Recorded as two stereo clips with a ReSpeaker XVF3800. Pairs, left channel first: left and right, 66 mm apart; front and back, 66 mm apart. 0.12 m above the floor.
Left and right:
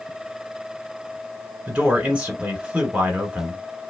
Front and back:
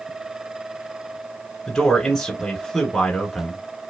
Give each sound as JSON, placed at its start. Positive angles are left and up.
{"t": 1.7, "sound": "a man speaking", "azimuth_deg": -65, "distance_m": 1.8}